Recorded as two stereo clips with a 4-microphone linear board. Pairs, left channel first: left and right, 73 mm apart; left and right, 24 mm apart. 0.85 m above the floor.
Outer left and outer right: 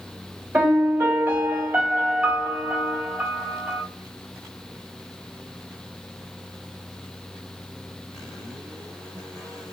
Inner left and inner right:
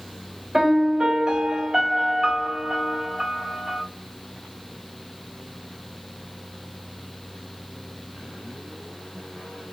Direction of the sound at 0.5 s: 20° right (ahead or behind).